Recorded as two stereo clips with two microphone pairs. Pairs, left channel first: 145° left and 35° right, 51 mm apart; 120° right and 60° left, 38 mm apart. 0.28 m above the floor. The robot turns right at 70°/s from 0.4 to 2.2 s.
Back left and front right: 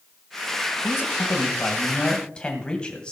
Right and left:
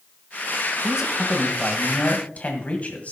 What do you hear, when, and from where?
0.8 s a man speaking: 120° left, 1.7 m; by 3.1 s 145° right, 1.7 m